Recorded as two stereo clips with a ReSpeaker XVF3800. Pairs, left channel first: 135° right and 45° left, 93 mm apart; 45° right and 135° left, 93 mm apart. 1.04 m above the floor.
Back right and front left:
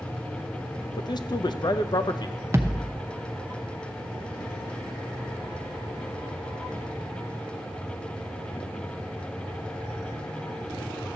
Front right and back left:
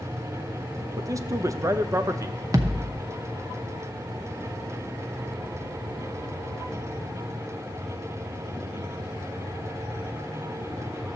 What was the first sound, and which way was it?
A man speaking, 170° right.